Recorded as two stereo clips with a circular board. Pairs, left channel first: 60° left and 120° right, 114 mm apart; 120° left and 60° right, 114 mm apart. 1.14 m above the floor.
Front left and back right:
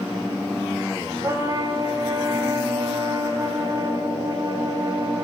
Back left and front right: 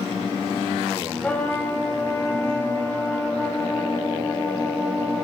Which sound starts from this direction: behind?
A trumpet, at 1.2 s.